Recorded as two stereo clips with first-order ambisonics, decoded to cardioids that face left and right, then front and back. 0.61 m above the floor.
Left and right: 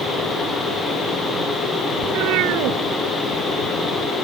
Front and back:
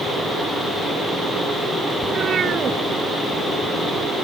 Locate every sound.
2.0 s a cat meowing: 115° right